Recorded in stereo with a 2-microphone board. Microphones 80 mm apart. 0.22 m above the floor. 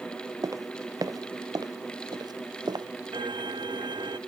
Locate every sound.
0.4 s footsteps: 50° right (ahead or behind); by 2.9 s 65° right (ahead or behind)
3.1 s a violin: 75° right (ahead or behind)